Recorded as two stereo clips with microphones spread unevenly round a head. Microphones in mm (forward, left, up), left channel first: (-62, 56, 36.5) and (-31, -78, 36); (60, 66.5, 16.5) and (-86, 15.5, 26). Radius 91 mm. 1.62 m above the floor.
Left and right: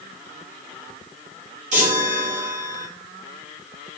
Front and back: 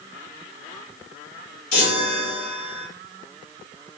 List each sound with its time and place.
1.7 s a chime: 30° right, 3 m